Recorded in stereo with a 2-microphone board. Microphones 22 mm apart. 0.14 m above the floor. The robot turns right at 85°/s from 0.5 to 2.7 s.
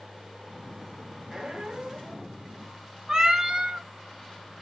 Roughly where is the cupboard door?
I don't hear a cupboard door.